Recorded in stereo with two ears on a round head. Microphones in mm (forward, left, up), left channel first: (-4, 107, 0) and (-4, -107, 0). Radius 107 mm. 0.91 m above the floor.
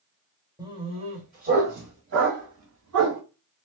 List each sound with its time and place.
0.6 s a dog barking: 15° right (ahead or behind), 1.1 m; by 3.2 s 65° right (ahead or behind), 1.8 m